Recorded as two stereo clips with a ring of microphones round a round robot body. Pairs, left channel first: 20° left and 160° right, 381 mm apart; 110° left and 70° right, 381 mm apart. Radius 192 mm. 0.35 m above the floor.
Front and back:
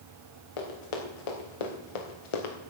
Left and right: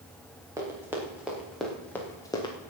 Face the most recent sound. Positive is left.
turn(degrees=35)